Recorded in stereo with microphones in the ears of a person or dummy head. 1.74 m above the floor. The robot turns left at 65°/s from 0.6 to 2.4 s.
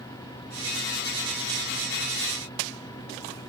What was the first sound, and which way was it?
Only background noise.